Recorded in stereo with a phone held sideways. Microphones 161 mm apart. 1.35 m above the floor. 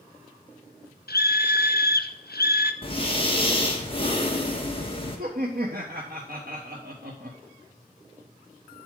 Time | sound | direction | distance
1.1 | a scream | 75° left (ahead or behind) | 0.8 m
2.8 | breathing | 35° left (ahead or behind) | 1.6 m
5.2 | laughter | 70° right (ahead or behind) | 1.0 m